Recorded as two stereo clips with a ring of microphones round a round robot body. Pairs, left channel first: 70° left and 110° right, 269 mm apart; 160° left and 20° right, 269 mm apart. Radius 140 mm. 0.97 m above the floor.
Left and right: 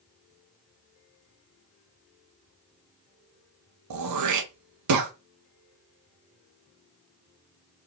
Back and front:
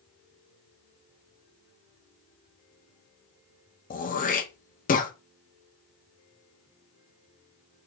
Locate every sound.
3.9 s throat clearing: 140° right, 0.9 m